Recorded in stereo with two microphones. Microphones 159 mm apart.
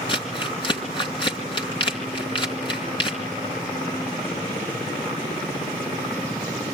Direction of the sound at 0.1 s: 30° left (ahead or behind).